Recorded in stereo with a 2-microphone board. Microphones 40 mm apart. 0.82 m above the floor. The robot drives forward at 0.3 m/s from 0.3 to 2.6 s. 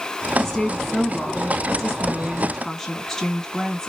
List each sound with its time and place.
0.4 s a woman speaking: 5° left (ahead or behind), 1.3 m; by 3.9 s 10° left (ahead or behind), 0.9 m